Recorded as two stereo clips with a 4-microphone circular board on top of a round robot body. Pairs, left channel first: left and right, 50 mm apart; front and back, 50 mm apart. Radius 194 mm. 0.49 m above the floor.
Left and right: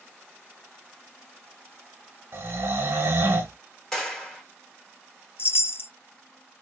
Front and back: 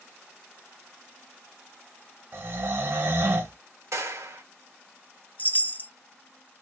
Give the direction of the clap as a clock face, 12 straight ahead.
6 o'clock.